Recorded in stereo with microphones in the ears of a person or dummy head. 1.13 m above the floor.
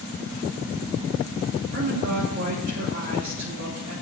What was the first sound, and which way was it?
A woman speaking, 45° right (ahead or behind).